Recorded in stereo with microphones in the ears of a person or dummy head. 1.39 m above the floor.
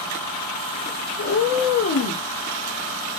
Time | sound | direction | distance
1.2 | a cat meowing | 45° left (ahead or behind) | 0.8 m